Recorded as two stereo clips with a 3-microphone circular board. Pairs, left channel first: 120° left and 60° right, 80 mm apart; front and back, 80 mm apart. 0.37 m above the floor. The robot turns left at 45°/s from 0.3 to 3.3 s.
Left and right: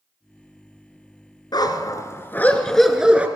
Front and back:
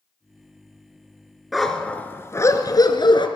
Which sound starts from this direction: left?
A dog barking, at 1.5 s.